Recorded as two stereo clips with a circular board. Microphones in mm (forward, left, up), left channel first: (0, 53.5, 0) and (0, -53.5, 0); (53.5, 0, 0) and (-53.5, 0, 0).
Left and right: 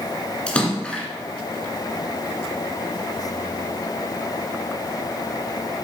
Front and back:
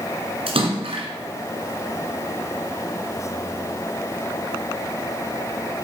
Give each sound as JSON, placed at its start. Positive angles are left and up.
{"t": 0.5, "sound": "a splash", "azimuth_deg": 165, "distance_m": 1.8}